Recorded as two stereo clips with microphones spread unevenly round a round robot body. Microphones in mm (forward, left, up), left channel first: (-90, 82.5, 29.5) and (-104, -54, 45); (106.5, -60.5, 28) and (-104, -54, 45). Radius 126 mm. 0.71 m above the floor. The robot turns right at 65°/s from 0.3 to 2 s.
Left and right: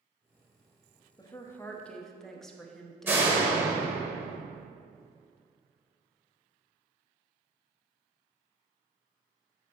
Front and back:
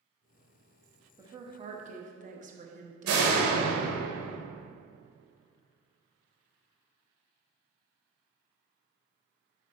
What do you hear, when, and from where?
1.2 s a woman speaking: 105° left, 1.0 m; by 3.9 s 160° left, 1.0 m
3.1 s a door slam: 170° right, 1.9 m